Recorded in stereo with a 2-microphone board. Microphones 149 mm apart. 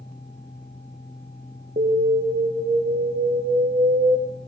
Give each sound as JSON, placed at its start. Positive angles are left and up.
{"t": 1.8, "sound": "an alarm", "side_deg": -65, "distance_m": 7.0}